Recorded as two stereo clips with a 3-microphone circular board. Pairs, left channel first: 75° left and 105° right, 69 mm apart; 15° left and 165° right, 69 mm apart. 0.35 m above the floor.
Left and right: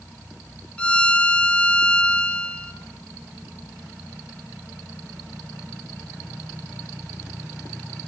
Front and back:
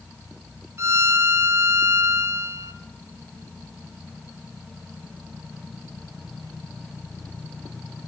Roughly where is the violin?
Behind left.